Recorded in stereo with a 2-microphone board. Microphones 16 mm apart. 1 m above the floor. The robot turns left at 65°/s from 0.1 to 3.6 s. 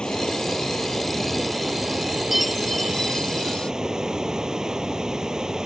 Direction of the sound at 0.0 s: 85° left.